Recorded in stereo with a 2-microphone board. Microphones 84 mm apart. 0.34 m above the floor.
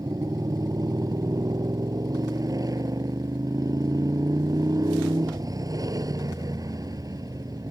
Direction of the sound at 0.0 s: 45° right (ahead or behind).